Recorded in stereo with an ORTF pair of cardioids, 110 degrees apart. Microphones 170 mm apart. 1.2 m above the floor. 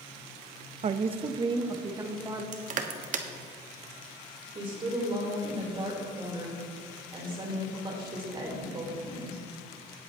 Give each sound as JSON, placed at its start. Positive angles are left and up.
{"t": 0.8, "sound": "a woman speaking", "azimuth_deg": -40, "distance_m": 0.7}
{"t": 2.5, "sound": "crushing", "azimuth_deg": -50, "distance_m": 1.2}
{"t": 4.5, "sound": "a woman speaking", "azimuth_deg": -30, "distance_m": 4.0}